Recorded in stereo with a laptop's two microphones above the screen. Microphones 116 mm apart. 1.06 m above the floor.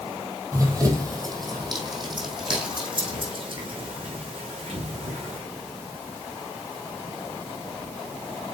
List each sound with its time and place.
0.5 s running footsteps: 25° right (ahead or behind), 2 m; by 5.4 s 50° right (ahead or behind), 5 m